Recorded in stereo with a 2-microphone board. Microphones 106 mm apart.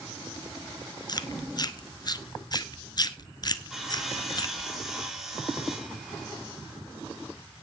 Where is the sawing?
5° right (ahead or behind), 3 m.